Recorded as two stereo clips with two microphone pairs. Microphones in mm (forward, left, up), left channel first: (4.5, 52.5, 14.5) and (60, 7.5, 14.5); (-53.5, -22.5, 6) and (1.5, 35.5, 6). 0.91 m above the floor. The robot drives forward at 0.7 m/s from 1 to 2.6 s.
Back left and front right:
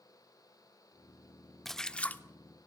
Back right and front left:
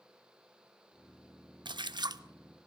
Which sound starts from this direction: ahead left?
A splash, at 1.6 s.